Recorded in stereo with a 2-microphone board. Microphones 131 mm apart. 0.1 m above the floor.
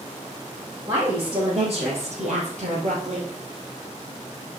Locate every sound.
0.9 s a woman speaking: 35° right (ahead or behind), 3.5 m; by 3.3 s 60° right (ahead or behind), 2.5 m